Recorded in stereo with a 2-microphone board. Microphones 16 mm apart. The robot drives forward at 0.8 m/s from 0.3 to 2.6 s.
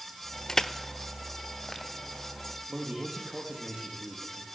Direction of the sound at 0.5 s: 35° left (ahead or behind).